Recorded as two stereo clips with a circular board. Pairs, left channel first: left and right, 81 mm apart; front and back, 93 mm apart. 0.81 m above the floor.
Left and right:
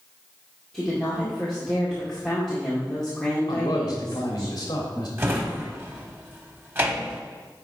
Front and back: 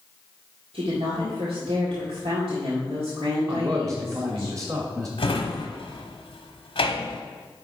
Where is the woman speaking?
175° left, 2 m.